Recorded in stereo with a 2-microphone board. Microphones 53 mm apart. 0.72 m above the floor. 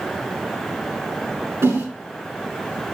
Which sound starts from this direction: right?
A whoosh, at 1.6 s.